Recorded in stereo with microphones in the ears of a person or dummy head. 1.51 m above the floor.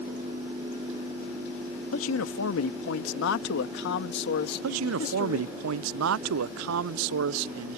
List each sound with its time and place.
1.9 s a man speaking: 85° left; by 5.5 s 45° left (ahead or behind)
4.6 s a man speaking: 80° right